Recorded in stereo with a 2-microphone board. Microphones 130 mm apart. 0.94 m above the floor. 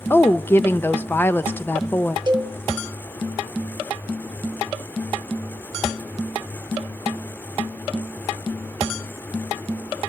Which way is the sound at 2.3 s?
40° right (ahead or behind).